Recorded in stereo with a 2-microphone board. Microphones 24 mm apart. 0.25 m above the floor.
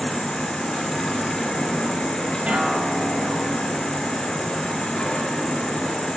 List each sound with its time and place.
0.0 s an insect: 35° left (ahead or behind), 3.5 m
2.5 s a guitar: 80° right, 3 m